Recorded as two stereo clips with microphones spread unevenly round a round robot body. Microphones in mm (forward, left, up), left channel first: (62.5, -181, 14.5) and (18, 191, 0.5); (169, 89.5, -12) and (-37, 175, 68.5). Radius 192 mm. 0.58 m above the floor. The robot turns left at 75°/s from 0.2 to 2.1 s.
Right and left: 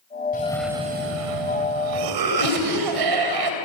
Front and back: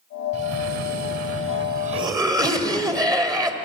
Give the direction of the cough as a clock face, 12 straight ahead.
5 o'clock.